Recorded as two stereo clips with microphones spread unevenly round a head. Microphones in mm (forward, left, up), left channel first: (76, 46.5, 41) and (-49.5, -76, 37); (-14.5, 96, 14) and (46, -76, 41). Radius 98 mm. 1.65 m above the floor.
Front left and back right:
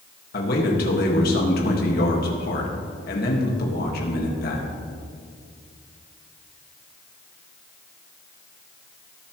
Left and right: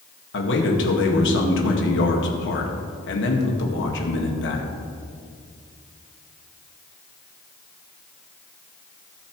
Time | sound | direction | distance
0.3 | a man speaking | 85° left | 2 m